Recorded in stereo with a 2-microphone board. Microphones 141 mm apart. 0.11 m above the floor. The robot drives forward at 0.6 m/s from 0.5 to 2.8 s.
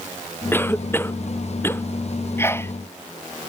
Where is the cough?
15° left (ahead or behind).